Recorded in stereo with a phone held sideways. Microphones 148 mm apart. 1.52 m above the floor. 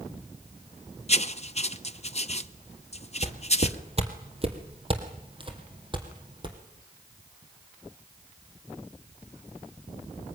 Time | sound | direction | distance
1.1 | writing | 45° left (ahead or behind) | 0.8 m
3.2 | footsteps | 45° right (ahead or behind) | 2.5 m